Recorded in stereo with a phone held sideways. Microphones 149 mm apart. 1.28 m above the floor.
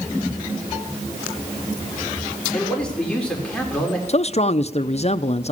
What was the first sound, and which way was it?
A man speaking, 5° left (ahead or behind).